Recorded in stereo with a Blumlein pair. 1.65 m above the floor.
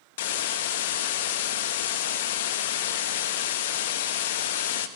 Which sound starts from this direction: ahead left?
A hiss, at 0.2 s.